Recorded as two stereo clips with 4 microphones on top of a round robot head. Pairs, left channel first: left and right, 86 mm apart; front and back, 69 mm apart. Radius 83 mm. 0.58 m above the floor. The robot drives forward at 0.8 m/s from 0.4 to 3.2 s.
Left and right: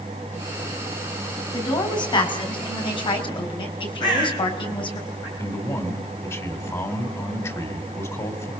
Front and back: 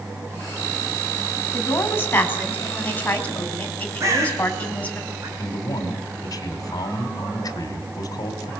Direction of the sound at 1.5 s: 55° left.